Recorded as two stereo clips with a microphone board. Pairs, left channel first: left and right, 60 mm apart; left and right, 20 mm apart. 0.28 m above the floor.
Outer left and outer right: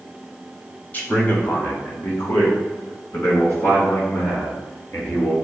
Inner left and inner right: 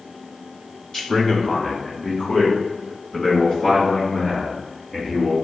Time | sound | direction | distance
0.9 | a man speaking | 30° left (ahead or behind) | 1.0 m